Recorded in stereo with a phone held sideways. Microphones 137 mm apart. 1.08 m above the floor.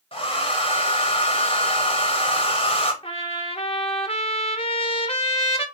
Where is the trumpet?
45° left (ahead or behind), 0.7 m.